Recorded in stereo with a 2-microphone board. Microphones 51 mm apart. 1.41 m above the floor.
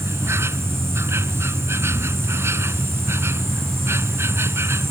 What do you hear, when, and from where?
0.0 s an insect: 55° right (ahead or behind)